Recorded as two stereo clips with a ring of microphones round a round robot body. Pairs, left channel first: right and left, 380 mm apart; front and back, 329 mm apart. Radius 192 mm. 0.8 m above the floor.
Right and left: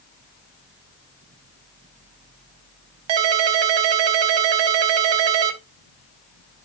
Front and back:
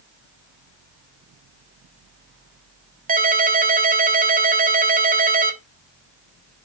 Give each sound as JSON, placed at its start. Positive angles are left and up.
{"t": 3.1, "sound": "a ringtone", "azimuth_deg": 115, "distance_m": 1.1}